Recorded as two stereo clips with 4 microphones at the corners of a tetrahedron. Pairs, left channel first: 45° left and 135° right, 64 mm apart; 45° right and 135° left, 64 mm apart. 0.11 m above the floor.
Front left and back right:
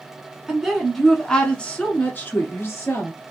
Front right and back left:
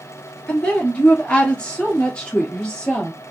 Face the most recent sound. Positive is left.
turn(degrees=30)